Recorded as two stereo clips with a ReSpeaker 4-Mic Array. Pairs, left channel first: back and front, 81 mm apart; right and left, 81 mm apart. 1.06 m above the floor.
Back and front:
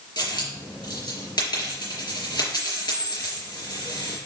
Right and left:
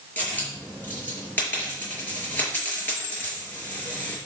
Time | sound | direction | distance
0.2 | a dropped coin | 155° right | 5 m